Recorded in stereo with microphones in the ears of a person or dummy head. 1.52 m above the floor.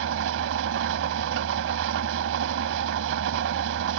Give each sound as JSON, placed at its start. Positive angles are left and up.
{"t": 0.0, "sound": "an engine running", "side_deg": -65}